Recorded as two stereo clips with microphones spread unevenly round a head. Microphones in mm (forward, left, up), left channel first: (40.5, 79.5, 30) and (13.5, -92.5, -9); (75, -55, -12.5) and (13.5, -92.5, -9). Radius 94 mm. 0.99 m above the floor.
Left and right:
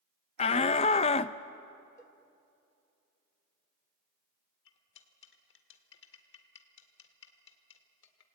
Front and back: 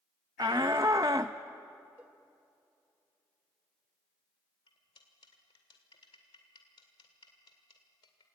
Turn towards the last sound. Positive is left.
turn(degrees=65)